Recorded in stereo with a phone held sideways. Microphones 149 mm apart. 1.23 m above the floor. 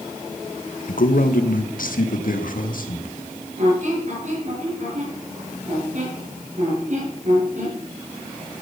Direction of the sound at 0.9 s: 75° left (ahead or behind).